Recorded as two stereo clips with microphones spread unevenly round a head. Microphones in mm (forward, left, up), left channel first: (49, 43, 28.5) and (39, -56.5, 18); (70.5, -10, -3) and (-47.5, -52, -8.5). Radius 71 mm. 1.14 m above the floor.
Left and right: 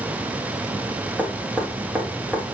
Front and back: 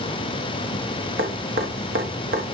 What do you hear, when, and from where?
1.2 s dripping: 175° right, 1.1 m